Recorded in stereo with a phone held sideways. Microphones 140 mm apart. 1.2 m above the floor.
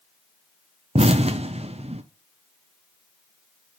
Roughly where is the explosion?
Right.